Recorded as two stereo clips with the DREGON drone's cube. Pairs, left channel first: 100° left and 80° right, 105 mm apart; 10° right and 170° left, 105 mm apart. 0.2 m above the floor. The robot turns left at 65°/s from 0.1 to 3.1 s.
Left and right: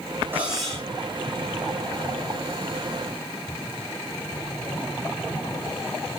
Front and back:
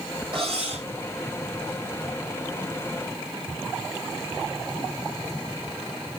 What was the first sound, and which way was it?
Cutlery clinking, 150° right.